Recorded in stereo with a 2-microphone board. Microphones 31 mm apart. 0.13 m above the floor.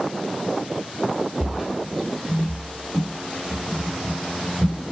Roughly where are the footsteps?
Centre.